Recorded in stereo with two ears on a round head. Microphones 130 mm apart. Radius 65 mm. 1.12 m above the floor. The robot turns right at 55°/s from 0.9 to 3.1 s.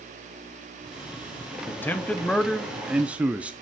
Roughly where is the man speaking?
Centre.